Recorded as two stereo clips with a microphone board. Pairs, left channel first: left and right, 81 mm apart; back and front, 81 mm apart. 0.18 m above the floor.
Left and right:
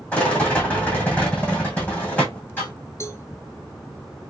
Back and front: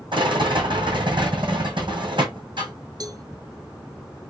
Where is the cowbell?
35° left, 0.8 m.